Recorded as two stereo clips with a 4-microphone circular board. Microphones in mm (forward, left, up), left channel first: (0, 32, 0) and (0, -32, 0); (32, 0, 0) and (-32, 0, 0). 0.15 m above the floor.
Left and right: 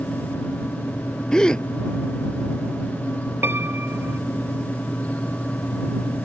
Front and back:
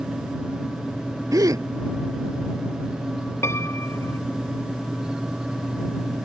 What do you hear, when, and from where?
1.3 s a gasp: 165° left
3.4 s a piano: 40° right